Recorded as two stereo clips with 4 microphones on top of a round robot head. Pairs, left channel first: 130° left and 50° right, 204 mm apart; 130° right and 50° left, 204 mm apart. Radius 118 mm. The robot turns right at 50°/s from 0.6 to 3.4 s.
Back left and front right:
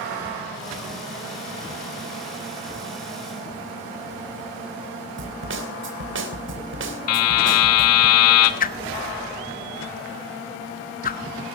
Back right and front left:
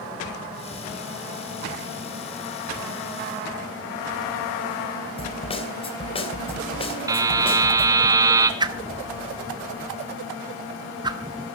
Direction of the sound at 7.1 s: 125° left.